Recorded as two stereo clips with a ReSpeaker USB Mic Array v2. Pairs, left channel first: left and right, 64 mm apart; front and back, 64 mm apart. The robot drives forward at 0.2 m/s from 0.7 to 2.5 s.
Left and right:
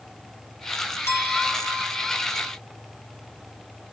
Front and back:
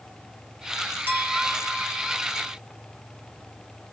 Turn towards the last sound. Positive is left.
turn(degrees=130)